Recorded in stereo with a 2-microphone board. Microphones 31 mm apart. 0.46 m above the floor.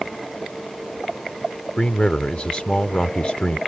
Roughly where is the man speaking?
Left.